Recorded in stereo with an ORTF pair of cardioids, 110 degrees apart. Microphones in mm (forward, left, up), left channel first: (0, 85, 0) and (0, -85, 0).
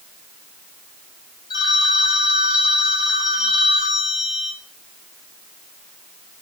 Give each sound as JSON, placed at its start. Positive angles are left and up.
{"t": 1.5, "sound": "a phone ringing", "azimuth_deg": 25, "distance_m": 1.4}